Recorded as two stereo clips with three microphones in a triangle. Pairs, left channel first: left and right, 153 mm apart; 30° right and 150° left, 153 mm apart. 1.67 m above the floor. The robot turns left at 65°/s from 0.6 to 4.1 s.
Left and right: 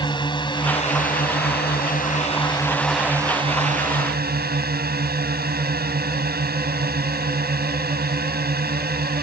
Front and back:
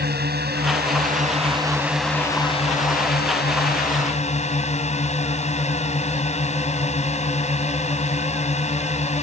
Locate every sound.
0.0 s a drone: 150° left; by 9.2 s 75° right